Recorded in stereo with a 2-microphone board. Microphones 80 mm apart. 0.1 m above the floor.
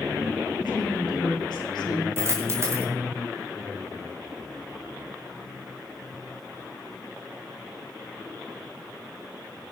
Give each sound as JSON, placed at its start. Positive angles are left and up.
{"t": 0.6, "sound": "a woman speaking", "side_deg": 75, "distance_m": 7.0}
{"t": 2.2, "sound": "a dropped coin", "side_deg": -35, "distance_m": 4.0}